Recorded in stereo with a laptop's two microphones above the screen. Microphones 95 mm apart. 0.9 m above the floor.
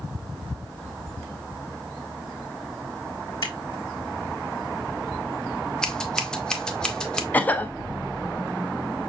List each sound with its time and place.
3.4 s scissors: 50° left (ahead or behind), 1.4 m
5.8 s scissors: 10° left (ahead or behind), 0.6 m
7.3 s a cough: 20° left (ahead or behind), 0.5 m